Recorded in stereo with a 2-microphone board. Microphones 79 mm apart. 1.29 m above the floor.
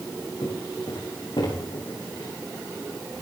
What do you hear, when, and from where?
0.4 s footsteps: 70° left (ahead or behind), 6 m; by 2.3 s 75° left (ahead or behind), 8 m